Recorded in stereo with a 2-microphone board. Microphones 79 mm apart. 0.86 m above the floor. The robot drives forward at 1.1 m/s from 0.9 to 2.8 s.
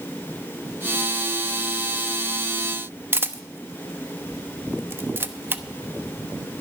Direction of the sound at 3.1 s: 25° right (ahead or behind).